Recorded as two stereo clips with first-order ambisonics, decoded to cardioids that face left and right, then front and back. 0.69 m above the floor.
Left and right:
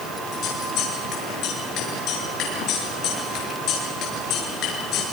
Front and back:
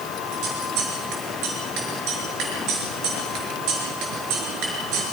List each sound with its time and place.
0.3 s scissors: 140° left, 7 m